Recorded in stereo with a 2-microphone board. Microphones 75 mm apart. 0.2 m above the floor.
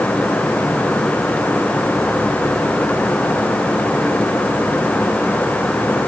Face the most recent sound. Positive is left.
No sound to turn to.